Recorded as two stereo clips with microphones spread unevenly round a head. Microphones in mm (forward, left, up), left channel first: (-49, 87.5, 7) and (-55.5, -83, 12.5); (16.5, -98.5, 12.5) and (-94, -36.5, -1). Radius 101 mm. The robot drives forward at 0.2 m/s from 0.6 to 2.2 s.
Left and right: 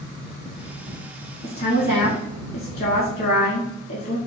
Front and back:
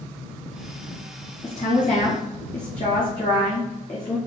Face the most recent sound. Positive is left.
turn(degrees=45)